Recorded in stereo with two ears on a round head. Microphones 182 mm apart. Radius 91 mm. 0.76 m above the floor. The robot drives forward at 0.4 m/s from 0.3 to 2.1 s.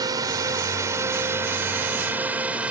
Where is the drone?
20° right (ahead or behind); by 2.7 s 5° right (ahead or behind).